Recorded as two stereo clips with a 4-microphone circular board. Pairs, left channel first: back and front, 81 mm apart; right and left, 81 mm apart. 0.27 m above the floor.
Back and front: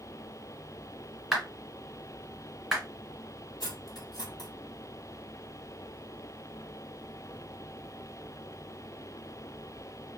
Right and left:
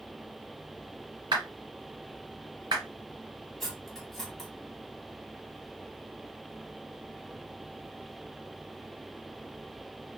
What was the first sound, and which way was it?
A clap, 90° left.